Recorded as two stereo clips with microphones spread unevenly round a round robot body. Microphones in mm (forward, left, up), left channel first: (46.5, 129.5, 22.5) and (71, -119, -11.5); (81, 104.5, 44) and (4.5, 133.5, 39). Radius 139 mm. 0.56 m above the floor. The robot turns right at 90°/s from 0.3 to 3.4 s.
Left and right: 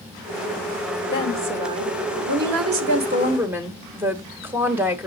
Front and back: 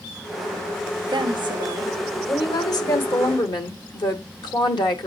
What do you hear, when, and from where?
1.1 s a woman speaking: 150° left, 1.6 m; by 5.1 s 5° right, 1.6 m